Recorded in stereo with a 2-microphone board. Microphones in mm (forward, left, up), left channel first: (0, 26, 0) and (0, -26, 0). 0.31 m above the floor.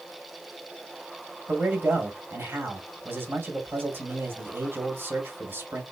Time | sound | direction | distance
1.5 | a man speaking | 45° right (ahead or behind) | 1.7 m